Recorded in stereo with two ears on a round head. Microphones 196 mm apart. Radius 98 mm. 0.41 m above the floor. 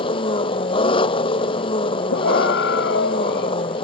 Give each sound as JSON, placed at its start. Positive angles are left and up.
{"t": 0.0, "sound": "an engine running", "side_deg": 25}
{"t": 2.1, "sound": "a scream", "side_deg": 55}